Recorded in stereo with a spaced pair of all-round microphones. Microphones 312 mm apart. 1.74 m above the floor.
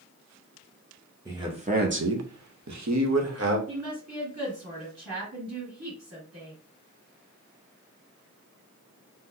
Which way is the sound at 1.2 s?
10° right (ahead or behind).